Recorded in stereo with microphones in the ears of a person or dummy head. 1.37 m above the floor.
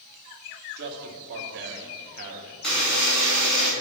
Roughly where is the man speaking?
Right.